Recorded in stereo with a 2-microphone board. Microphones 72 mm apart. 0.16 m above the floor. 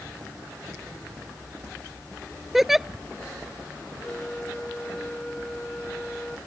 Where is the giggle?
5° right (ahead or behind).